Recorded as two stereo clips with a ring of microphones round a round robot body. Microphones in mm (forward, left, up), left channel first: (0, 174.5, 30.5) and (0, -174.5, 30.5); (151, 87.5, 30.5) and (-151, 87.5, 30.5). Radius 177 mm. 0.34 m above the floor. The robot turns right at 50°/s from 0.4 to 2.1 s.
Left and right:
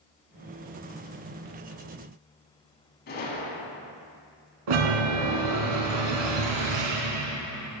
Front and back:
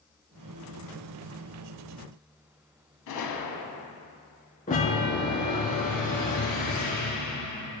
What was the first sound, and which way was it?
A gunshot, 25° left.